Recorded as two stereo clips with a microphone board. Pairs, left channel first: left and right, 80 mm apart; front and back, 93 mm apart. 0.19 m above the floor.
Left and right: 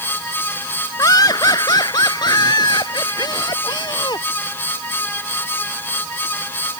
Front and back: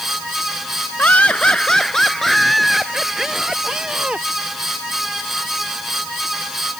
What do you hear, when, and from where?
1.0 s laughter: 70° left; by 4.3 s 100° left